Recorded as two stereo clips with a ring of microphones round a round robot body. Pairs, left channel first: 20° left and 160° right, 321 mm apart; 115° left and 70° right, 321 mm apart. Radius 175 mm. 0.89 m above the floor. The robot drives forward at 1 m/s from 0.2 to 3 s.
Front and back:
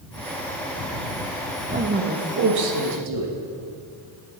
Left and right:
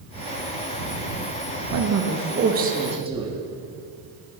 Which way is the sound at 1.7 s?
85° right.